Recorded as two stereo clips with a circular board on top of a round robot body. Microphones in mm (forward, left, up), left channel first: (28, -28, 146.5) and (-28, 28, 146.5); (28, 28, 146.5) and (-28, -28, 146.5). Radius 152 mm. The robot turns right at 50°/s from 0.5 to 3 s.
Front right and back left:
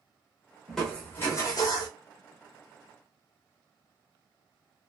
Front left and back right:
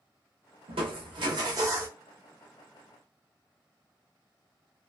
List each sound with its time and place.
0.7 s crushing: 135° right, 0.6 m; by 1.9 s 70° right, 0.6 m